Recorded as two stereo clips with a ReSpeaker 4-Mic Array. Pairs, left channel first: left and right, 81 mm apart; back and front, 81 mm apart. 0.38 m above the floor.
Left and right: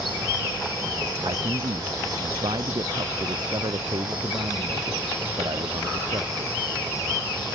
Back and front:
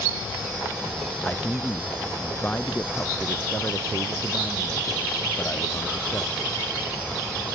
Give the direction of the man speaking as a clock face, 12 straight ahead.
4 o'clock.